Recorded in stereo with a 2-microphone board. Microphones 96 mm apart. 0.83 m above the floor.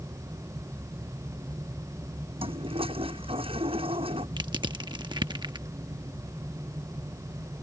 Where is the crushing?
55° right (ahead or behind).